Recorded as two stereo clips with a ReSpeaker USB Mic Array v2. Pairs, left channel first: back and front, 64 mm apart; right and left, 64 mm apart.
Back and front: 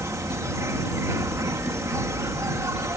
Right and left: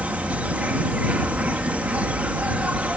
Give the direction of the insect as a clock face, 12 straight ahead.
11 o'clock.